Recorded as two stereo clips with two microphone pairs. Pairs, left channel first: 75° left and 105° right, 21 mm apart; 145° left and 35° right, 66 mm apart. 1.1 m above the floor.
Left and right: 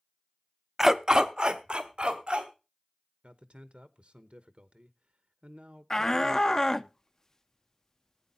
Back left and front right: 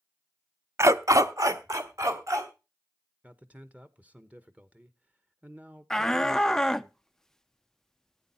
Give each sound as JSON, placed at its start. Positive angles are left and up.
{"t": 0.8, "sound": "a dog barking", "azimuth_deg": -40, "distance_m": 0.6}
{"t": 3.2, "sound": "a man speaking", "azimuth_deg": -105, "distance_m": 1.0}
{"t": 5.9, "sound": "a shout", "azimuth_deg": 70, "distance_m": 0.6}